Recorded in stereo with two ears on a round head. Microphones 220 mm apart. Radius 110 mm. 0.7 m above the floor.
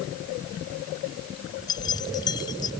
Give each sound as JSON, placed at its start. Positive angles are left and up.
{"t": 1.7, "sound": "keys jangling", "side_deg": 15}